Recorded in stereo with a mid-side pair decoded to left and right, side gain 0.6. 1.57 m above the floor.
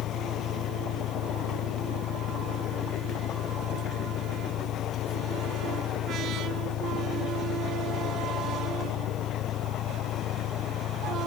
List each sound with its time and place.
0.0 s an engine running: 60° left